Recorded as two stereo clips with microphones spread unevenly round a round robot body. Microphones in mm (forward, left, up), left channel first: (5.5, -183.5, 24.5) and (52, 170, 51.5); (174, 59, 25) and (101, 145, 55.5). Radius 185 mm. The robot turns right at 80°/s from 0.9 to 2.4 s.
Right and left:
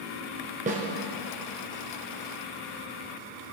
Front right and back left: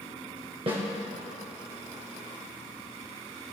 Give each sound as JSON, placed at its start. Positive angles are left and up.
{"t": 0.7, "sound": "a snare drum", "azimuth_deg": 150, "distance_m": 0.7}